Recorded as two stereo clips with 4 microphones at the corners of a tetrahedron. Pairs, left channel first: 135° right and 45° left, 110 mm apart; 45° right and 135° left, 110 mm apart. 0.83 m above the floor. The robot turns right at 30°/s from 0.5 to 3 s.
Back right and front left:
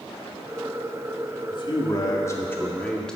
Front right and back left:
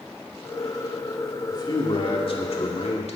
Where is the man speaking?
95° right, 1.9 m; by 3.2 s 50° right, 1.9 m.